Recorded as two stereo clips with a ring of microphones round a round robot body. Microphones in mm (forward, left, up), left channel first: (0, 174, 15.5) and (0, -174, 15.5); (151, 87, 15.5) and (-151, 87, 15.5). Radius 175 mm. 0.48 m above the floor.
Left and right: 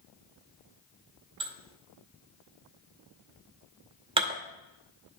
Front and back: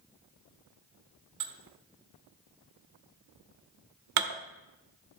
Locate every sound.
1.4 s dishes clattering: 165° right, 0.9 m